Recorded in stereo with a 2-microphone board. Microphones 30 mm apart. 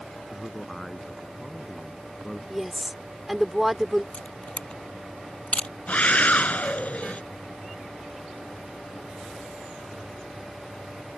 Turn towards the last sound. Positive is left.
turn(degrees=50)  # may be behind; listen again after turning